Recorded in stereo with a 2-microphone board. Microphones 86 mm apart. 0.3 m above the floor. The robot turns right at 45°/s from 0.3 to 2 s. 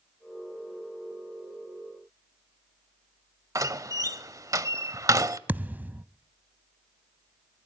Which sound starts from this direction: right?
A door slam, at 3.5 s.